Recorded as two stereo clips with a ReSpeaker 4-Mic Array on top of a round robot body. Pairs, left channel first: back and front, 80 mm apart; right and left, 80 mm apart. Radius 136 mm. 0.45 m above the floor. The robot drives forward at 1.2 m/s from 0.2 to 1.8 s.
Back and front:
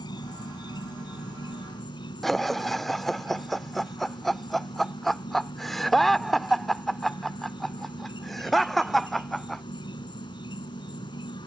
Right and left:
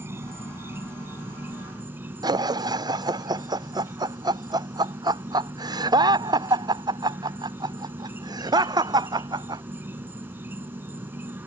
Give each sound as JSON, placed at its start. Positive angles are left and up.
{"t": 0.0, "sound": "an insect", "azimuth_deg": 150}
{"t": 2.2, "sound": "laughter", "azimuth_deg": 95}